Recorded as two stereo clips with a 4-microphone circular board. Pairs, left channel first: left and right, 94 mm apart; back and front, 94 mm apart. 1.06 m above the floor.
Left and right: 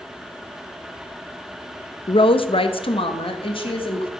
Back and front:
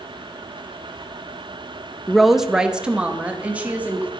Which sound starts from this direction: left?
A woman speaking, at 2.1 s.